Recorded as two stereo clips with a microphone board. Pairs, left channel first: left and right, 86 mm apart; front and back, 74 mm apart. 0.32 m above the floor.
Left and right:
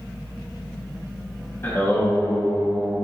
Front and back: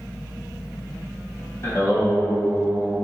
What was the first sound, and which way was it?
Singing, 35° left.